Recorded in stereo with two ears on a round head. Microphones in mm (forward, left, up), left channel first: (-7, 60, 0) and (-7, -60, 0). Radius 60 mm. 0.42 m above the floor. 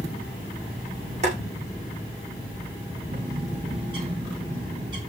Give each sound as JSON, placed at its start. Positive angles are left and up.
{"t": 1.2, "sound": "boiling", "side_deg": -50, "distance_m": 6.5}
{"t": 3.1, "sound": "a bird", "side_deg": -35, "distance_m": 6.5}